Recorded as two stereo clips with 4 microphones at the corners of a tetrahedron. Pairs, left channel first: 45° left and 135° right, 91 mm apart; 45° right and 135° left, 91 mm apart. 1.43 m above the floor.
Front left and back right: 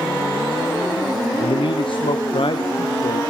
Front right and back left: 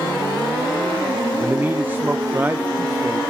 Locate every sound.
1.4 s a man speaking: 65° left, 0.7 m